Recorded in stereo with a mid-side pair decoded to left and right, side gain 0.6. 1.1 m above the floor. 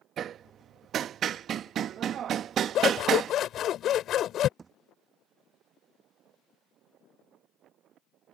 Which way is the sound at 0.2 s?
50° right.